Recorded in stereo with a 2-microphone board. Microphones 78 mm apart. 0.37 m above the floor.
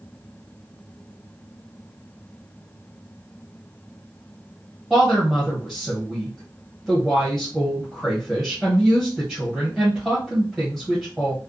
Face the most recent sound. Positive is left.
turn(degrees=0)  # may be behind; listen again after turning